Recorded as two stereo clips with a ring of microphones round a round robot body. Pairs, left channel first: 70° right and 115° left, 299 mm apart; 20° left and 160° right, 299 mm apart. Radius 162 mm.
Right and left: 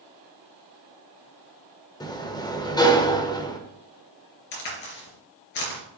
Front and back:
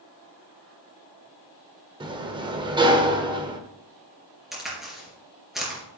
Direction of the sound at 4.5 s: 70° right.